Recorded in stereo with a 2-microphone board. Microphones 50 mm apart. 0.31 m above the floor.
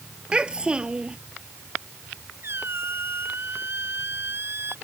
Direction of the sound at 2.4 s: 50° right (ahead or behind).